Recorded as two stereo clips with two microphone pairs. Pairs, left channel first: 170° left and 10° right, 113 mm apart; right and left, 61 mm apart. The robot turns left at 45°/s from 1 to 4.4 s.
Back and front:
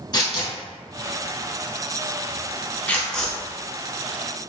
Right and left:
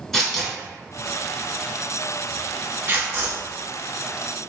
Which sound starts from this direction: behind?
Tearing paper, at 0.1 s.